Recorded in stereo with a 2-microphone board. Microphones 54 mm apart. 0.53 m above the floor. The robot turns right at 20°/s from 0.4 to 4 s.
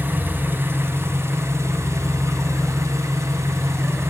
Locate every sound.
0.0 s an engine running: 135° right, 1.4 m; by 4.1 s 60° right, 1.4 m